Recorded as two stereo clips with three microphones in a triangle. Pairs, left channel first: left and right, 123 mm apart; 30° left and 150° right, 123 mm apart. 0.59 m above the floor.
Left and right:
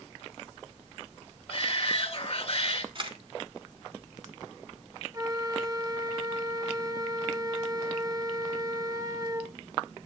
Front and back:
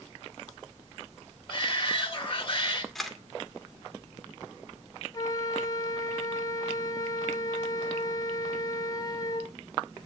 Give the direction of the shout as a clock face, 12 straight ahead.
10 o'clock.